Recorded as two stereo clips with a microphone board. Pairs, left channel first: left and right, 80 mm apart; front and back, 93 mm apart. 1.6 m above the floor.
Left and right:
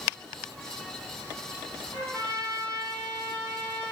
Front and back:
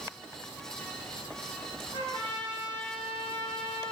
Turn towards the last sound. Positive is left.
turn(degrees=160)